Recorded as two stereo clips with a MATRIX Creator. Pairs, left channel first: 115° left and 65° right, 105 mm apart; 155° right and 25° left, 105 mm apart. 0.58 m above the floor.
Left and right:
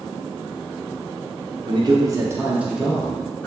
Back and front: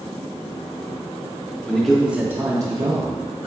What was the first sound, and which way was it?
A man speaking, 80° right.